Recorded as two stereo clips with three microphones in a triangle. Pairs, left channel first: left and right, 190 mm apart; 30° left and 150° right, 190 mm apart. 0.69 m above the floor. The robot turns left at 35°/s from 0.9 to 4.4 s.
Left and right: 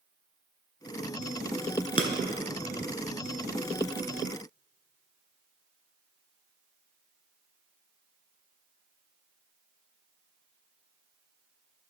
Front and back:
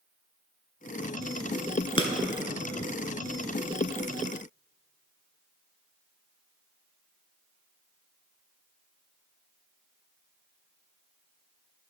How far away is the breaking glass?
About 0.7 m.